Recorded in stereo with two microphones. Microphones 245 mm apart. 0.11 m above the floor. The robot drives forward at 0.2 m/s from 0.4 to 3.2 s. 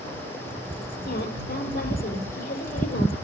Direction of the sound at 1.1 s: 40° left (ahead or behind).